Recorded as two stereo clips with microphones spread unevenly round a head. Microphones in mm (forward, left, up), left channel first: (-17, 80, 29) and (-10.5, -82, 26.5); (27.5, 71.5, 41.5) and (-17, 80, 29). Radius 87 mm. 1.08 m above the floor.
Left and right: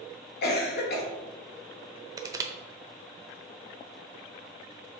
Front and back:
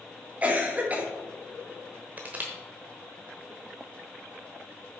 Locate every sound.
0.4 s a cough: 115° left, 2.5 m
2.2 s crushing: 130° right, 0.8 m